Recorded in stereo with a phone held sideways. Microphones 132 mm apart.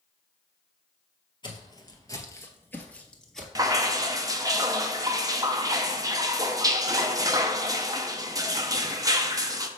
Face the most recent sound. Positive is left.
turn(degrees=-25)  # may be behind; listen again after turning